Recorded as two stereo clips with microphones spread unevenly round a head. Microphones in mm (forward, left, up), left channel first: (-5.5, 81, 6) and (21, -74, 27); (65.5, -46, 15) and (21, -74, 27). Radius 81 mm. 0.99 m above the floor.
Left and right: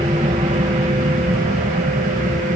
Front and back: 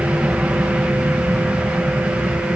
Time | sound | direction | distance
0.0 | an aircraft | 110° right | ?